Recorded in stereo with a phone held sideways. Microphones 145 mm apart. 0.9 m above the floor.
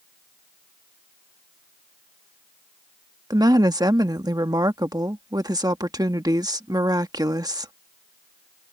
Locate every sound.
3.3 s a woman speaking: 25° right (ahead or behind)